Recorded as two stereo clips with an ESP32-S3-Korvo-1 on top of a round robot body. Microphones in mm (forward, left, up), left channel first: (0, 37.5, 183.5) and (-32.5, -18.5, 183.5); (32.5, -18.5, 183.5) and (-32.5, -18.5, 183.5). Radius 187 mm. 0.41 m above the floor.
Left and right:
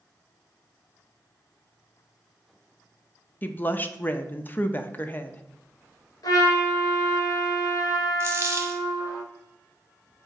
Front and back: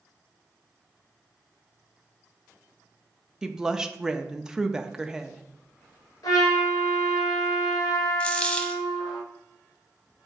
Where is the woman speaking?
105° left, 0.8 m.